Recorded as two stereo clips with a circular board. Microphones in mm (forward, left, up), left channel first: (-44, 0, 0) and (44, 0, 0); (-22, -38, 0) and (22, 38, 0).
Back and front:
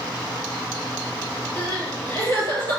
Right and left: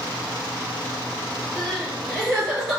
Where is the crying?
150° left, 1.9 m.